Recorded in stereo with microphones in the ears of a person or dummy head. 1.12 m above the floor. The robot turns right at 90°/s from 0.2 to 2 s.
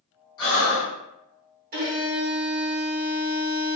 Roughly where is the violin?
Right.